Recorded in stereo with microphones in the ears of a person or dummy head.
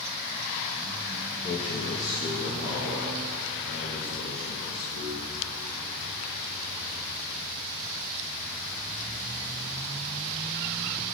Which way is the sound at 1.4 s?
35° left (ahead or behind).